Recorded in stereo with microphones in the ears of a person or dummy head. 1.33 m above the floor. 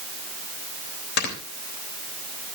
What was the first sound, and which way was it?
Snoring, 60° left (ahead or behind).